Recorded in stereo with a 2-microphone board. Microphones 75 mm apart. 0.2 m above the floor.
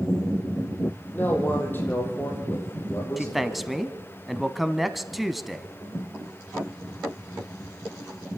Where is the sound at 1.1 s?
25° left (ahead or behind), 6.5 m; by 3.7 s 40° left (ahead or behind), 6.5 m.